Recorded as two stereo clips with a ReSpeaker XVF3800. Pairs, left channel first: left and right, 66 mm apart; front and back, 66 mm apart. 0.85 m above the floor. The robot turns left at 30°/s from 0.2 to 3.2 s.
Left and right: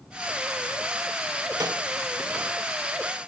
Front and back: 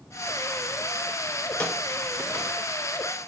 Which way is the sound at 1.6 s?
70° right.